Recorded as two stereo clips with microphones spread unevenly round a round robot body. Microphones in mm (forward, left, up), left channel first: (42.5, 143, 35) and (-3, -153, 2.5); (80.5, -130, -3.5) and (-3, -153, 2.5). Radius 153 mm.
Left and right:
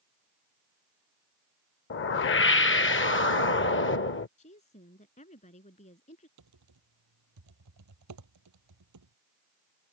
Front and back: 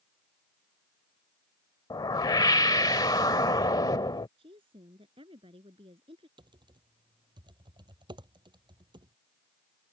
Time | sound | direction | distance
1.9 | a whoosh | 35° left | ?
4.4 | a woman speaking | 150° left | ?
6.4 | typing on a keyboard | 135° right | ?